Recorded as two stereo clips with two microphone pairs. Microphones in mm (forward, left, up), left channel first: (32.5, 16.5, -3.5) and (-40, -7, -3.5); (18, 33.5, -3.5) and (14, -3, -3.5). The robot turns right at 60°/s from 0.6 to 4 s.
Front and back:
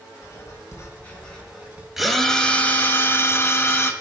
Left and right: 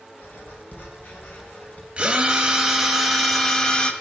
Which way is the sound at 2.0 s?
75° right.